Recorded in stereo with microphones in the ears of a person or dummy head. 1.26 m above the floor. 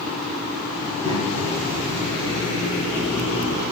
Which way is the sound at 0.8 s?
30° right (ahead or behind).